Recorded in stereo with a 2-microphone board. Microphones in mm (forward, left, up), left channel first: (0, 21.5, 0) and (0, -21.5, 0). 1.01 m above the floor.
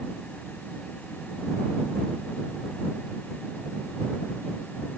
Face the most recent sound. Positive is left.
No sound to turn to.